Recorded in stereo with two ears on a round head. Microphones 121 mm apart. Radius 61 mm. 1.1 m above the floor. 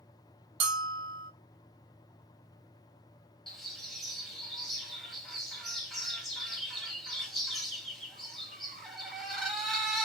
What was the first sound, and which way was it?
A bell, 40° right (ahead or behind).